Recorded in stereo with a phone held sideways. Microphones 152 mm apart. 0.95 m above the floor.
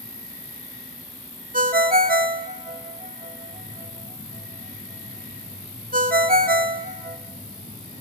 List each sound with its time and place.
0.0 s an insect: 45° right (ahead or behind), 9.5 m
1.5 s a ringtone: 70° right (ahead or behind), 1.0 m